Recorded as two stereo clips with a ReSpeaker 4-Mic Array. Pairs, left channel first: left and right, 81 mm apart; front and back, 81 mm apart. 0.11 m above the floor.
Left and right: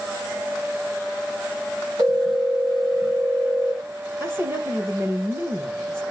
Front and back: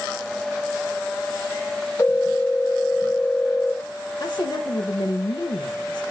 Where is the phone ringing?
60° right, 7.5 m.